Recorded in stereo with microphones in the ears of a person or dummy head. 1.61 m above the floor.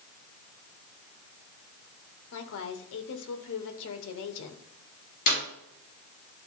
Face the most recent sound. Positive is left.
turn(degrees=40)  # may be behind; listen again after turning